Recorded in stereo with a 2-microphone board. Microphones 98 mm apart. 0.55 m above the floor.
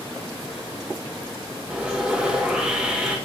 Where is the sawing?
10° right (ahead or behind), 1.5 m.